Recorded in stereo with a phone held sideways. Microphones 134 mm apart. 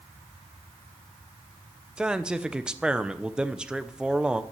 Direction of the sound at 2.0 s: 5° right (ahead or behind).